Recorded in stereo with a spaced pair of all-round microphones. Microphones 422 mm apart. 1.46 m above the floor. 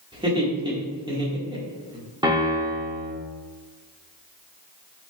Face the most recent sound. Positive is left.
turn(degrees=-10)  # may be behind; listen again after turning